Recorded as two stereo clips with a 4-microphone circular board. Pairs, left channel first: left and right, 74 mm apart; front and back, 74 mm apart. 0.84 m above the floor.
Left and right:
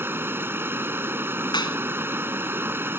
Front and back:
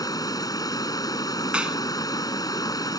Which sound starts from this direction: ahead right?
Running water, at 0.0 s.